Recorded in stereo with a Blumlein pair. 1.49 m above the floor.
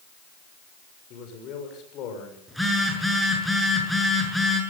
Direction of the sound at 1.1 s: 35° left.